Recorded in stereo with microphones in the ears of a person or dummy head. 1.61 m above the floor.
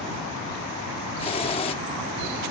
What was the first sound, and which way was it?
A hiss, 30° left (ahead or behind).